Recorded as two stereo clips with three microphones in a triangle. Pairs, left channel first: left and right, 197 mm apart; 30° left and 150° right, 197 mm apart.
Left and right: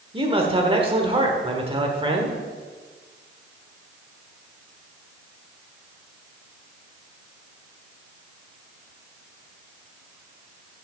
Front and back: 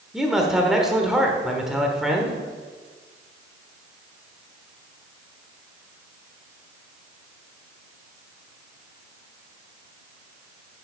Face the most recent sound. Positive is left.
turn(degrees=-65)